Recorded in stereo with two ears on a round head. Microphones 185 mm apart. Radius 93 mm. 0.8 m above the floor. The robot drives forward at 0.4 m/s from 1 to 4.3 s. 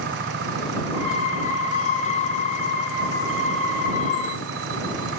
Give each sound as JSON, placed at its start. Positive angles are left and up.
{"t": 0.0, "sound": "an engine running", "side_deg": -55}